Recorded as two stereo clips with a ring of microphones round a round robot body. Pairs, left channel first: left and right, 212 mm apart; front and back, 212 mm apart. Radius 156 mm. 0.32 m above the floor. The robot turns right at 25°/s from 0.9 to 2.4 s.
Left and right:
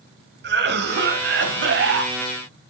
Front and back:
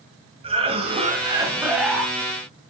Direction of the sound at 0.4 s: 115° right.